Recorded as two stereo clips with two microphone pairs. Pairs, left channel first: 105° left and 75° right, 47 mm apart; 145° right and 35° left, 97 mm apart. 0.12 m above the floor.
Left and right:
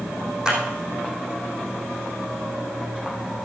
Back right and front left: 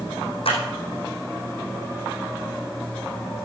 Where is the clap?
145° right, 5.5 m.